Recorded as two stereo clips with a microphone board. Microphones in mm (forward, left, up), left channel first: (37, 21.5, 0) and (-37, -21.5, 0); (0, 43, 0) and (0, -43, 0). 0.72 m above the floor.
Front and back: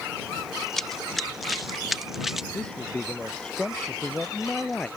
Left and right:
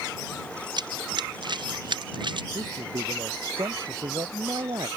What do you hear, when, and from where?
0.8 s running footsteps: 60° right; by 2.4 s 65° right
2.5 s a man speaking: 50° right